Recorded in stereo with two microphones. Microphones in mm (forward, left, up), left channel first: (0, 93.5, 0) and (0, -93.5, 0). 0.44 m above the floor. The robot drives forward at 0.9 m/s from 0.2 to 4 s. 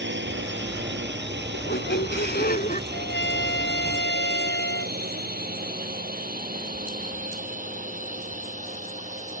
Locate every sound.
0.0 s a drone: 75° right (ahead or behind); by 9.4 s 45° right (ahead or behind)
1.5 s a squeak: 75° left (ahead or behind); by 2.8 s 50° left (ahead or behind)
2.9 s a trumpet: 75° left (ahead or behind); by 5.0 s 85° left